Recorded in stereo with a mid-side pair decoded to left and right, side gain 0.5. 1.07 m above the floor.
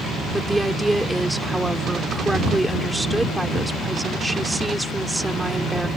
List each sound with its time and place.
0.3 s a woman speaking: 10° right